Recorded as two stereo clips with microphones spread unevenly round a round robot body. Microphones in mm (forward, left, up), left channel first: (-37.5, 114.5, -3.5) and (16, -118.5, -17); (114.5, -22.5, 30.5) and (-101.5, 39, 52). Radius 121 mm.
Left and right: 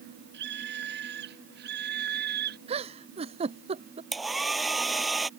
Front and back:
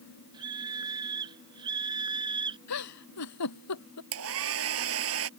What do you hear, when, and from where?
0.3 s a scream: 125° right
2.7 s a giggle: 10° right
4.1 s a hair dryer: 165° right